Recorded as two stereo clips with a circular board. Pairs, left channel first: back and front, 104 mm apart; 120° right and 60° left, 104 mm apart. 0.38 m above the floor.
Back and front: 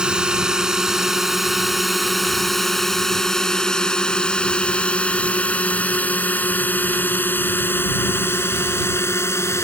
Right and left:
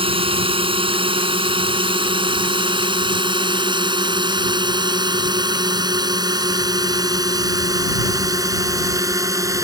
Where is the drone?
80° left; by 9.6 s 115° left.